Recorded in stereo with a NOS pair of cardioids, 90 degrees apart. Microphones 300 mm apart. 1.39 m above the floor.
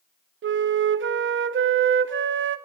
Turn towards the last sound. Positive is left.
turn(degrees=-45)